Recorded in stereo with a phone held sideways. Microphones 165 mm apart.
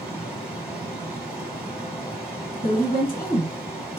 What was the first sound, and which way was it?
Running water, 5° right (ahead or behind).